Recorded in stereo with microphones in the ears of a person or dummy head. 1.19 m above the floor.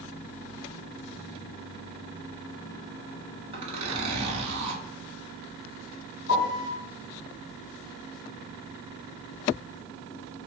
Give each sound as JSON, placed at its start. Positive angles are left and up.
{"t": 3.5, "sound": "a zipper", "side_deg": -30, "distance_m": 1.2}
{"t": 6.3, "sound": "a piano", "side_deg": 65, "distance_m": 1.5}